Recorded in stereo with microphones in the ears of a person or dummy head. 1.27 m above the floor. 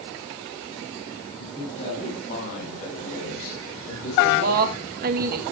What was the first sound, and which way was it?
A man speaking, 40° left (ahead or behind).